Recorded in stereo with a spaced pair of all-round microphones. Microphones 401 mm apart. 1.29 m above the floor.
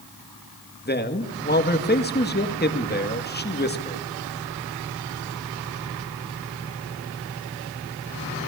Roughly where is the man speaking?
Left.